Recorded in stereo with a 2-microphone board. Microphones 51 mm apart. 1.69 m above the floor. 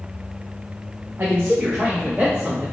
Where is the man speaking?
45° right (ahead or behind), 0.5 m; by 2.6 s 20° right (ahead or behind), 1.6 m.